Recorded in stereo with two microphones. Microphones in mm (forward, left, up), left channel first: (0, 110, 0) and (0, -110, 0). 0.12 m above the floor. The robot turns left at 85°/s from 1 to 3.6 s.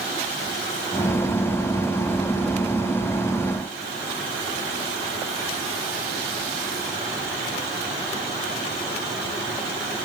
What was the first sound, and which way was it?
Only background noise.